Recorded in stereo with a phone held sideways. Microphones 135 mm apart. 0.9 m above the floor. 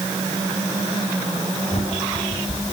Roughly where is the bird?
Left.